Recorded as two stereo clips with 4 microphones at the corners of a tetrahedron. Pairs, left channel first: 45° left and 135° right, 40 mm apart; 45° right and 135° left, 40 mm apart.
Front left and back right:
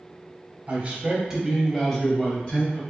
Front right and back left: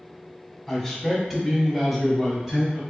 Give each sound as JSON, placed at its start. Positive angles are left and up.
{"t": 0.7, "sound": "a man speaking", "azimuth_deg": -125, "distance_m": 1.2}